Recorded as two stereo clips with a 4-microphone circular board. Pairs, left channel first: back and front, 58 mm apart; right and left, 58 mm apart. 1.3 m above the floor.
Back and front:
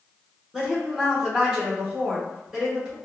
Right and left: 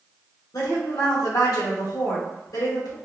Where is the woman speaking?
80° right, 1.3 m.